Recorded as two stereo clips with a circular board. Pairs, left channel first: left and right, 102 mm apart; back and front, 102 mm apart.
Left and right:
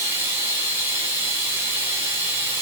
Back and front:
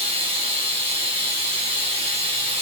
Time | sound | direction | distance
0.0 | running water | 25° right | 1.8 m